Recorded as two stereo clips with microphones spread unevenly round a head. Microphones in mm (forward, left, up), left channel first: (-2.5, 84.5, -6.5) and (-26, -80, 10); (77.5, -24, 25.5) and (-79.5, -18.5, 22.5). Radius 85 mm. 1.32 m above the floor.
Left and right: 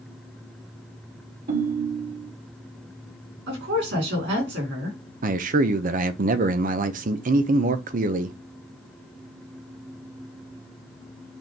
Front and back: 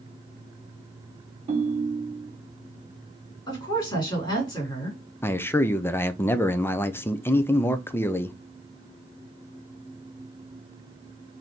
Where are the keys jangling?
I don't hear keys jangling.